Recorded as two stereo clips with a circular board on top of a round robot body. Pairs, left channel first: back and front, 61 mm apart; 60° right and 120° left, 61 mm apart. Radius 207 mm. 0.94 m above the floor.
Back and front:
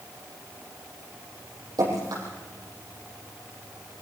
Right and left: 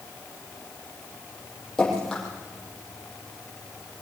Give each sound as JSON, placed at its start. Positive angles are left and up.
{"t": 1.8, "sound": "dripping", "azimuth_deg": 20, "distance_m": 7.5}